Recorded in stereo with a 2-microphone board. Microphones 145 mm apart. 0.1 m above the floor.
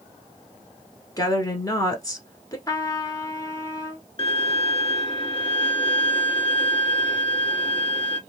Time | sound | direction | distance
1.2 | a woman speaking | 25° left (ahead or behind) | 1.1 m
2.7 | a trumpet | 25° left (ahead or behind) | 0.9 m
4.2 | a violin | 35° left (ahead or behind) | 0.7 m